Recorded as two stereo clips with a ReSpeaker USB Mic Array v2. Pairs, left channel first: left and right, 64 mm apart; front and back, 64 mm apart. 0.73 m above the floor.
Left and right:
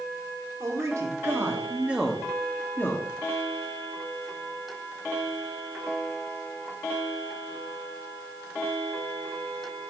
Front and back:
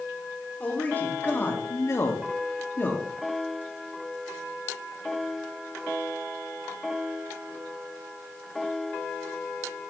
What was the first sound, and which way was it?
A man speaking, 65° right.